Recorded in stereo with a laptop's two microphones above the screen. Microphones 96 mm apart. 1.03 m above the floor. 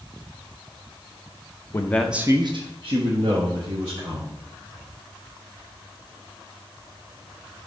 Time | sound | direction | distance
1.7 | a man speaking | 30° left (ahead or behind) | 0.8 m